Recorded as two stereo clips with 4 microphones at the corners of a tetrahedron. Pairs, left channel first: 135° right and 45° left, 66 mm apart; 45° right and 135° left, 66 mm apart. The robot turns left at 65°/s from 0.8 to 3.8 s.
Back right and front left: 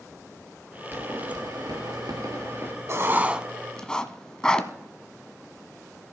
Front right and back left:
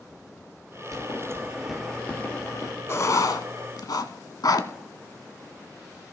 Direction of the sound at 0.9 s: 100° left.